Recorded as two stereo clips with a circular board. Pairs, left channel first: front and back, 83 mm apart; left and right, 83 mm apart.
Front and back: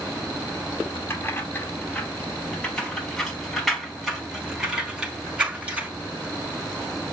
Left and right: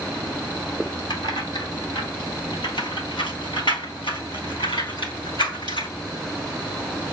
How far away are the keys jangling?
About 3 m.